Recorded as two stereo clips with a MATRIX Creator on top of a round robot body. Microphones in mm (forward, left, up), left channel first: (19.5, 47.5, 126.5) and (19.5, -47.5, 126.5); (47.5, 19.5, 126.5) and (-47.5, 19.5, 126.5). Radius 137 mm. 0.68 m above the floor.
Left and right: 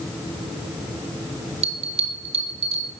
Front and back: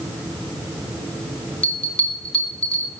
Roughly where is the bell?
Right.